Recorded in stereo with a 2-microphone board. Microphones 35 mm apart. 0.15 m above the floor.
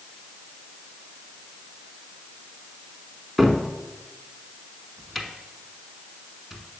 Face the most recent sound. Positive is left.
turn(degrees=0)  # may be behind; listen again after turning